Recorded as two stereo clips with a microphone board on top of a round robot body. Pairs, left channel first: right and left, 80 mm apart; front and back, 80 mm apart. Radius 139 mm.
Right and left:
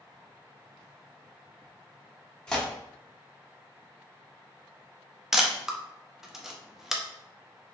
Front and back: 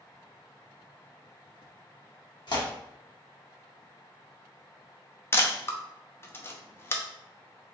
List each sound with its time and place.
2.5 s tearing paper: 10° right, 1.2 m
5.3 s a camera shutter: 10° left, 0.7 m